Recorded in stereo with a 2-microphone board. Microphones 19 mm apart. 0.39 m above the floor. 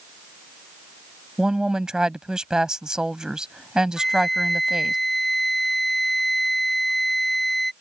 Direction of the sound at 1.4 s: 45° right (ahead or behind).